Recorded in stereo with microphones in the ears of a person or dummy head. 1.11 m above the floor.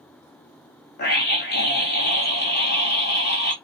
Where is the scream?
50° left (ahead or behind), 0.9 m.